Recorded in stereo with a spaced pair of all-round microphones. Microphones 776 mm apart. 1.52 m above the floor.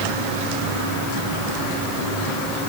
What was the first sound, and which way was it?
Only background noise.